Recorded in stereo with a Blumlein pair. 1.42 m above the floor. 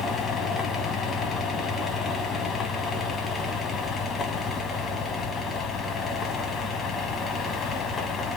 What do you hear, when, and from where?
0.0 s a fan: 20° left, 1.0 m